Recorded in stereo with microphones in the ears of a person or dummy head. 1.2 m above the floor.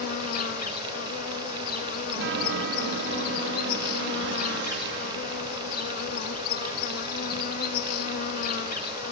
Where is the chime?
70° right (ahead or behind), 1.4 m.